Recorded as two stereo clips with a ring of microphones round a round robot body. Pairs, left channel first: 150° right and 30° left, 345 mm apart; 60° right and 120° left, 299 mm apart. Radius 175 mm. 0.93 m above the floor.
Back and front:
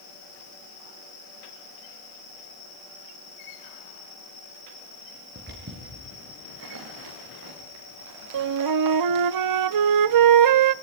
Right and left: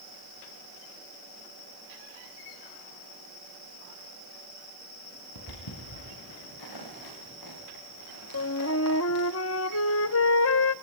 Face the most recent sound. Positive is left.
turn(degrees=-5)